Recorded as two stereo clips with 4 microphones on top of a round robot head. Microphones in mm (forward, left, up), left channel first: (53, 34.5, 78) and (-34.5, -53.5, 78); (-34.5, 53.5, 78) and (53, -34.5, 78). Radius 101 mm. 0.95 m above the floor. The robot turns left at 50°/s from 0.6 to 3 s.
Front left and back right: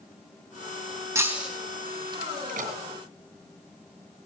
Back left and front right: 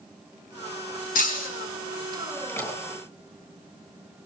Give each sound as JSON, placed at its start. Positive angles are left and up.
{"t": 1.1, "sound": "breaking glass", "azimuth_deg": 155, "distance_m": 3.5}
{"t": 2.5, "sound": "a door slam", "azimuth_deg": -150, "distance_m": 6.5}